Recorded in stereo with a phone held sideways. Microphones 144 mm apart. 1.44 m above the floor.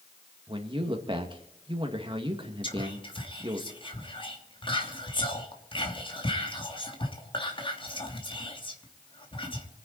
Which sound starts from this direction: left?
Whispering, at 2.6 s.